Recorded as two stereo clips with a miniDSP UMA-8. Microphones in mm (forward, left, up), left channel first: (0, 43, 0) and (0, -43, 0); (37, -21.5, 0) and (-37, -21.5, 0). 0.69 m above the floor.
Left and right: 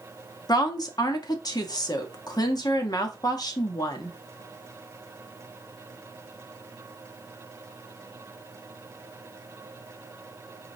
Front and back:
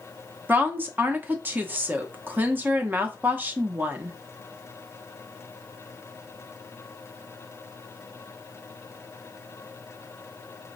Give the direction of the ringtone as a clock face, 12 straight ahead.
No ringtone in this recording.